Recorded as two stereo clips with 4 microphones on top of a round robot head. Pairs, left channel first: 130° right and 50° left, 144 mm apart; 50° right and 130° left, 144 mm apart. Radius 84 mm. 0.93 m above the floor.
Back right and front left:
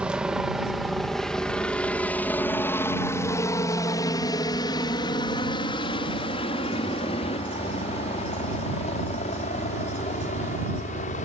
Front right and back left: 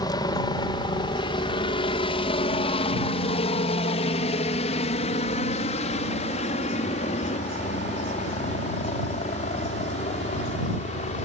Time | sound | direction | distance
0.0 | a helicopter | 25° right | ?